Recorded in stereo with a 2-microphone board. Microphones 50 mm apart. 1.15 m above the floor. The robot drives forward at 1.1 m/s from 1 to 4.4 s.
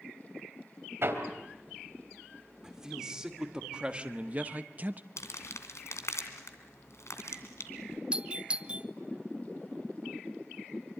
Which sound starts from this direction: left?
Crumpling, at 5.2 s.